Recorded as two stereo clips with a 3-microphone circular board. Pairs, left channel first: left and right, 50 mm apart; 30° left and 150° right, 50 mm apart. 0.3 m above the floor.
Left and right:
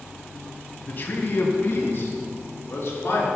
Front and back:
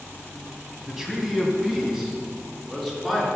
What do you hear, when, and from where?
0.9 s a man speaking: 130° left, 1.9 m; by 3.3 s 125° left, 3.5 m